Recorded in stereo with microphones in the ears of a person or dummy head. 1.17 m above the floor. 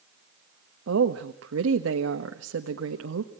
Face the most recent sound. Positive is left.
turn(degrees=-85)